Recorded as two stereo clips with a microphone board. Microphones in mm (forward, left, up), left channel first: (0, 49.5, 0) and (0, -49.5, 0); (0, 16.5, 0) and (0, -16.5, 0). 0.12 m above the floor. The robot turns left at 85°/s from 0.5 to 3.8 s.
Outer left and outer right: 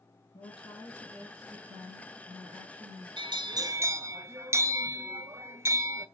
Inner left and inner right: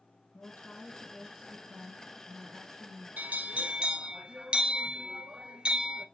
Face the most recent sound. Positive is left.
turn(degrees=-145)